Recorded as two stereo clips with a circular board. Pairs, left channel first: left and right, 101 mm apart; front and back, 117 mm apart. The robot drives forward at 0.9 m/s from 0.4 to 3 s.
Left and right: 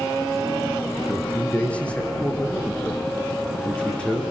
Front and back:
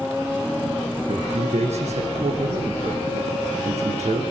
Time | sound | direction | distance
1.1 | a man speaking | 165° left | 5.5 m